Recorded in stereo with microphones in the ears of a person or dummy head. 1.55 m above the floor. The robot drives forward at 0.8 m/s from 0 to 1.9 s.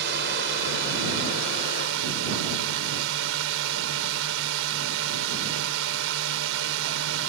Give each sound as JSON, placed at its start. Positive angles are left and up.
{"t": 0.0, "sound": "a drone", "side_deg": -65}